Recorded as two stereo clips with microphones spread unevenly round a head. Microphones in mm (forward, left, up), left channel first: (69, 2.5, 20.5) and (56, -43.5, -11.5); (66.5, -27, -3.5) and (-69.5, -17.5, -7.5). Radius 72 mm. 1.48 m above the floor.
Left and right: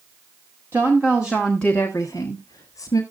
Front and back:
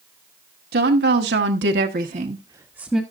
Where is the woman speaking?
Straight behind, 2 m; by 3.0 s 85° left, 1.4 m.